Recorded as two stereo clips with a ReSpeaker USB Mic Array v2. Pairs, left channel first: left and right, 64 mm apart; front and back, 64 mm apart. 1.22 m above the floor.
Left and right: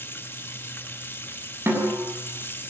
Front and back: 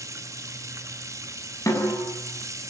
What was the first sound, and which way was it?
Running water, 145° left.